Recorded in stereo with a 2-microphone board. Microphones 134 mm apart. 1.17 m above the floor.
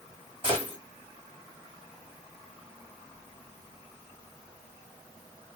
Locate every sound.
0.4 s a gunshot: 40° right (ahead or behind), 1.3 m